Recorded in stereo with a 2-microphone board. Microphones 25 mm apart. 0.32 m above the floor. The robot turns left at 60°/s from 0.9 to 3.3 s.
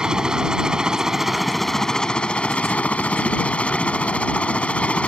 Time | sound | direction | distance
0.0 | a helicopter | 145° right | ?